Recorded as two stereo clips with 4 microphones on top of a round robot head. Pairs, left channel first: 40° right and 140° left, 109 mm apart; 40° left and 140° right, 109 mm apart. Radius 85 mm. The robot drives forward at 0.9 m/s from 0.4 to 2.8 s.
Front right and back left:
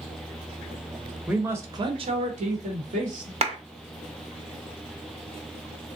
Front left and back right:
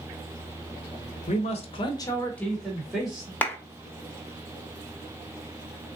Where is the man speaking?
55° left, 1.0 m; by 3.3 s 135° left, 1.2 m.